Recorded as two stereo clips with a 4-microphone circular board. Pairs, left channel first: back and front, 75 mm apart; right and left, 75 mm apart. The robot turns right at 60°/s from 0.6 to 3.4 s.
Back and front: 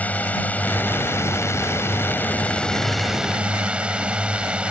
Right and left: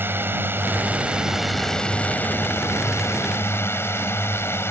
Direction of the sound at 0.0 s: 125° left.